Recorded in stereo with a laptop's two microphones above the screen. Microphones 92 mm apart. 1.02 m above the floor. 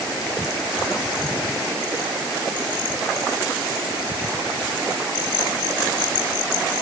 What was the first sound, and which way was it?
Only background noise.